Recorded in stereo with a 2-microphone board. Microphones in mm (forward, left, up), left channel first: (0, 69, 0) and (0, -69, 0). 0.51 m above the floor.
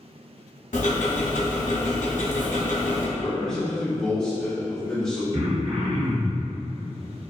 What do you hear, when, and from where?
0.7 s ticking: 75° left (ahead or behind), 0.6 m
3.2 s a man speaking: 5° left (ahead or behind), 0.9 m
5.3 s throat clearing: 50° right (ahead or behind), 0.5 m